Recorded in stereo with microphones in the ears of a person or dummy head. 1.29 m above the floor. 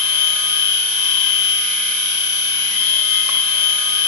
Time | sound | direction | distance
0.0 | a machine running | 65° left (ahead or behind) | 2.5 m